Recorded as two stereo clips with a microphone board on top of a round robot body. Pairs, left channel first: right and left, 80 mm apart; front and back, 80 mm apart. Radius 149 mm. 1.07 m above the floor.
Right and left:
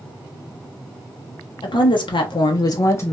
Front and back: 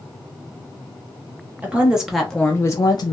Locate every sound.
1.6 s a woman speaking: 110° right, 0.8 m; by 3.1 s 25° right, 0.5 m